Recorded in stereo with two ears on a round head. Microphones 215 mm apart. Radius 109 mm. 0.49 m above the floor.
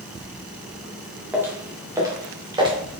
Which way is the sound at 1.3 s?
5° right (ahead or behind).